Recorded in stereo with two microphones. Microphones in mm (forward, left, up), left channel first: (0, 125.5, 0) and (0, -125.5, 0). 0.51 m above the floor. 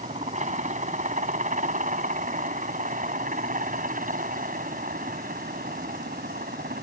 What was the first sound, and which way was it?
A helicopter, 30° right (ahead or behind).